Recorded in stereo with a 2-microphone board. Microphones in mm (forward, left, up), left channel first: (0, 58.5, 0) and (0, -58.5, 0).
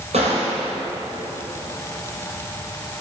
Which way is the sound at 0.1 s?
70° right (ahead or behind).